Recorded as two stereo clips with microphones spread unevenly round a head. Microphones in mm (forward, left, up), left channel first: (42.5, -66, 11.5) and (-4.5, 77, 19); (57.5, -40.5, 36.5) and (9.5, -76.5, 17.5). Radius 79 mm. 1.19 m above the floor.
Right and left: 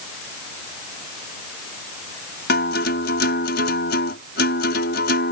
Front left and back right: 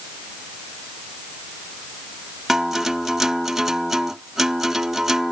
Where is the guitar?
60° right.